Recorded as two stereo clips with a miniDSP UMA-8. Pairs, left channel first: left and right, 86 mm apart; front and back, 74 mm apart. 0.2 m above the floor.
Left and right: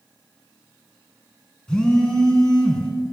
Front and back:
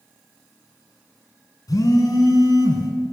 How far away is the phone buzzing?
About 1.2 m.